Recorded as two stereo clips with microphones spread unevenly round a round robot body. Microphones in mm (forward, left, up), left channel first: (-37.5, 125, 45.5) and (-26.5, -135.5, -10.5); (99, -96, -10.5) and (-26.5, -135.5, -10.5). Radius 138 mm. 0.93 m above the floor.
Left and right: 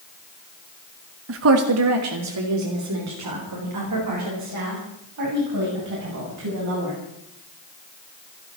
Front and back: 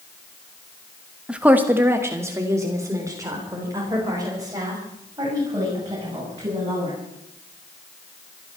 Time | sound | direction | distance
1.3 | a woman speaking | 80° right | 1.3 m